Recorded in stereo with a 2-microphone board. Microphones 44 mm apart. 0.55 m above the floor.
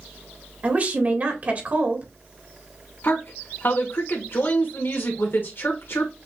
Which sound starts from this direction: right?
A woman speaking, at 0.6 s.